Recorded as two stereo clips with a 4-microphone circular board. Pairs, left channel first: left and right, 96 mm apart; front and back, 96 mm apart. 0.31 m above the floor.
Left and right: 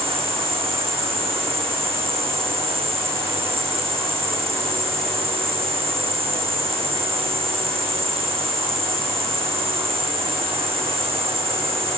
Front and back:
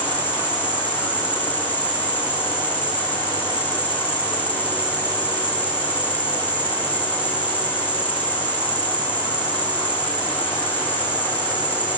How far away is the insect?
About 3 m.